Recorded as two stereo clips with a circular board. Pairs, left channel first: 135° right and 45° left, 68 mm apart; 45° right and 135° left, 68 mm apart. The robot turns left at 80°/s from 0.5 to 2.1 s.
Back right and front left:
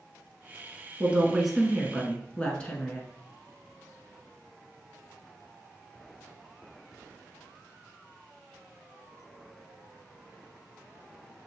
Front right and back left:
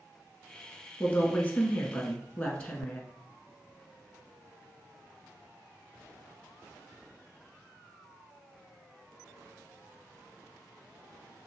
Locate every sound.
1.0 s a woman speaking: straight ahead, 1.1 m; by 3.0 s 90° right, 1.1 m